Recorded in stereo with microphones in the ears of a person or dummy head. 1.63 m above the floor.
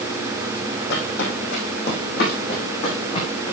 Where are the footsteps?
70° left (ahead or behind), 4 m; by 3.5 s 35° left (ahead or behind), 5 m.